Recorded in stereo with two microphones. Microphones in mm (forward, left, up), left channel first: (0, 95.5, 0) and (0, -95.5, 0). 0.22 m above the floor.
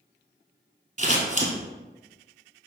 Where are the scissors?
45° right (ahead or behind), 0.9 m.